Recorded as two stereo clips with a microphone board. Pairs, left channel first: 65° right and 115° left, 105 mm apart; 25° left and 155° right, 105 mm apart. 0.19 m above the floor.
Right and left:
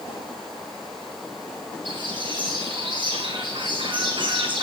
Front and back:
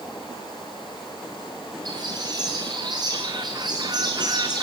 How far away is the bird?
About 3.5 m.